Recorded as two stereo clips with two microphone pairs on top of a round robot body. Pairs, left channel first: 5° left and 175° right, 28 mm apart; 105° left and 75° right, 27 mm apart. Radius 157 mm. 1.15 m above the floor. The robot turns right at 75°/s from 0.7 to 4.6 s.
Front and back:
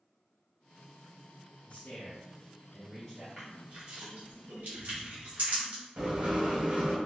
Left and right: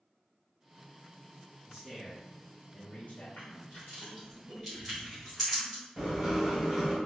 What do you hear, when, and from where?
1.7 s a man speaking: 30° right, 1.0 m; by 3.3 s 90° left, 1.0 m
3.4 s crushing: 100° left, 1.4 m; by 5.8 s 165° right, 1.4 m
6.0 s writing: 145° right, 1.6 m